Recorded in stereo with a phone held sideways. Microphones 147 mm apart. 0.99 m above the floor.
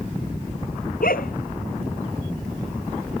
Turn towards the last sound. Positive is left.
turn(degrees=75)  # may be behind; listen again after turning